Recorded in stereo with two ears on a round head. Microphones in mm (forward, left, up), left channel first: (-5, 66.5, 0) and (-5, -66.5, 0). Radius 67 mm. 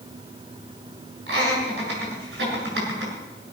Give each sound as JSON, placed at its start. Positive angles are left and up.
{"t": 1.3, "sound": "laughter", "side_deg": -85, "distance_m": 7.5}